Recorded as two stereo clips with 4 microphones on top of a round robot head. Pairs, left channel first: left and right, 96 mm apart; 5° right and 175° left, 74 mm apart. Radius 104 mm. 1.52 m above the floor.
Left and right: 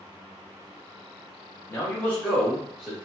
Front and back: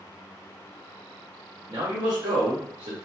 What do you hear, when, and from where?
1.7 s a man speaking: 150° left, 1.0 m; by 3.0 s 175° left, 1.4 m